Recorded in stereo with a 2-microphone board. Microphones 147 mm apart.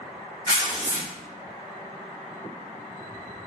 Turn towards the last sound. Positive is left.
turn(degrees=25)  # may be behind; listen again after turning